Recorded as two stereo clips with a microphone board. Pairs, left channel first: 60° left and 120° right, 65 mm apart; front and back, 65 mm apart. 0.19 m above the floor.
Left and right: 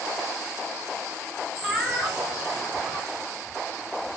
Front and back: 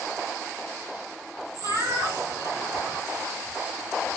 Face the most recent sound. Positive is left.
turn(degrees=145)